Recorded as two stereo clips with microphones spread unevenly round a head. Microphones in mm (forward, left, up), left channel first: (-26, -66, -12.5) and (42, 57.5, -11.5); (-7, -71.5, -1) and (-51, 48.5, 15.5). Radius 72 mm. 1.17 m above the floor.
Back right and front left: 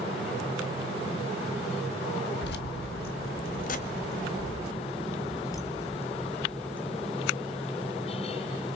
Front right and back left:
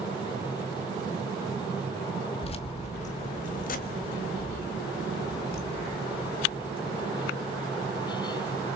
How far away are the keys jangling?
About 1.5 m.